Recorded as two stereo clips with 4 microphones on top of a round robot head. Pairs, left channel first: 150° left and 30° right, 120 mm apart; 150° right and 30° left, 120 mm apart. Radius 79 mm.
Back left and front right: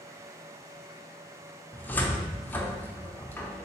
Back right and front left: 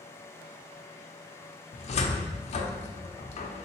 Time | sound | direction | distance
1.7 | a cupboard door | 140° right | 0.5 m